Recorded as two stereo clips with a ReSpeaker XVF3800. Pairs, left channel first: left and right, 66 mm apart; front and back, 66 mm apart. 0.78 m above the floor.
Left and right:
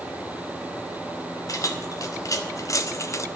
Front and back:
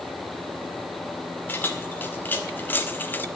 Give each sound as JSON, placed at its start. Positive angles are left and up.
{"t": 1.5, "sound": "keys jangling", "azimuth_deg": 60, "distance_m": 2.0}